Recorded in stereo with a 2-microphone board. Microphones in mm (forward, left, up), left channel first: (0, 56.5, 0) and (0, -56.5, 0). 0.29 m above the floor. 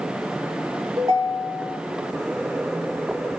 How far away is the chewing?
I don't hear chewing.